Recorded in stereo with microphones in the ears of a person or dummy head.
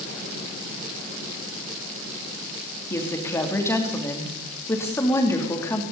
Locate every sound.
2.9 s a woman speaking: 15° left (ahead or behind), 3 m